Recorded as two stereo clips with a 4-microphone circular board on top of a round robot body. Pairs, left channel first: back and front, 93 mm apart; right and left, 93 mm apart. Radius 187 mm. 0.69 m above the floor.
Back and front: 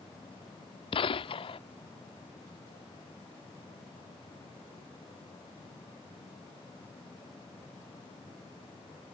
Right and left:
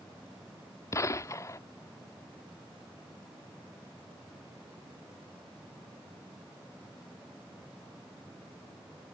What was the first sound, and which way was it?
A gunshot, 150° right.